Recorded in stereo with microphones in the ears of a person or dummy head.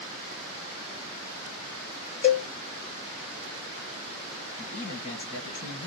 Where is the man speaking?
25° left (ahead or behind), 1.5 m.